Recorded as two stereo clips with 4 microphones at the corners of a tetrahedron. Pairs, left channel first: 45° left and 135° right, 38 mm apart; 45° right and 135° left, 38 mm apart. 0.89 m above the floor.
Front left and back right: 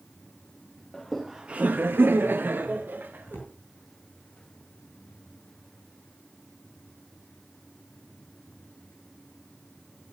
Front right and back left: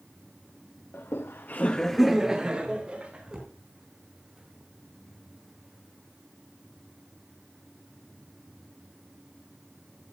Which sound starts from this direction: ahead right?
Laughter, at 0.9 s.